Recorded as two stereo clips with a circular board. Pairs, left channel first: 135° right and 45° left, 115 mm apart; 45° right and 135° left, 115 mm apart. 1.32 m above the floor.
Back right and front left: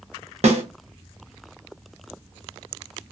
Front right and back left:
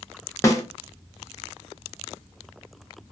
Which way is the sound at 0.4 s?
20° left.